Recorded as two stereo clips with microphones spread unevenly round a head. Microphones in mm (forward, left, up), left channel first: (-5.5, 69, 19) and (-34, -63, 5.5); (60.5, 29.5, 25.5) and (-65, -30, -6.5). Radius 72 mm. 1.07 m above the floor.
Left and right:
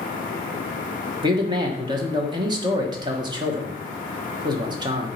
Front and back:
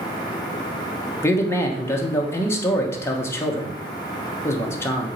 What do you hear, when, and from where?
1.2 s a man speaking: 55° right, 1.0 m